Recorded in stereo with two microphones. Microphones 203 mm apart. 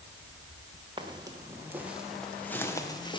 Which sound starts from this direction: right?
Footsteps, at 1.0 s.